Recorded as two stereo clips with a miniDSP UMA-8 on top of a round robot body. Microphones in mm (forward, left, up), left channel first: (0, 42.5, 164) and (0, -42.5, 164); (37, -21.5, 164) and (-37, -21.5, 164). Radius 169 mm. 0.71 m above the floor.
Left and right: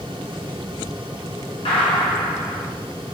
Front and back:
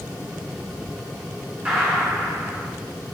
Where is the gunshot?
110° left, 0.7 m.